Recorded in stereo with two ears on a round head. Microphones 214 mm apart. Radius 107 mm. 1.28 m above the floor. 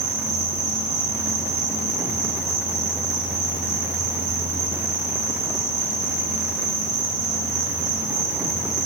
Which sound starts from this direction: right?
An insect, at 0.0 s.